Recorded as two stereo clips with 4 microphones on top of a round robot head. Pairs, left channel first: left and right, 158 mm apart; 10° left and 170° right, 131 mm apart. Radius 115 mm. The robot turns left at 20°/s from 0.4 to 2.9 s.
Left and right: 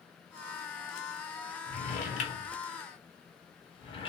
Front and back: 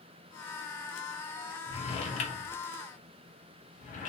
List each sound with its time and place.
1.7 s a drawer: 55° left, 0.9 m; by 4.1 s 30° left, 0.9 m